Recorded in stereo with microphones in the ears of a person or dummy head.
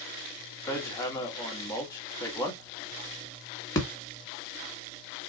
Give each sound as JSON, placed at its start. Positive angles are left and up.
{"t": 0.7, "sound": "hammering", "side_deg": 20, "distance_m": 1.3}